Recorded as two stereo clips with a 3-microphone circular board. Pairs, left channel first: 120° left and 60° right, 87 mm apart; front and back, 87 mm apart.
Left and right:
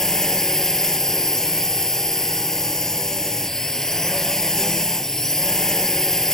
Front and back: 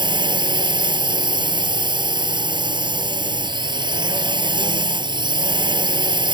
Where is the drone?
155° right.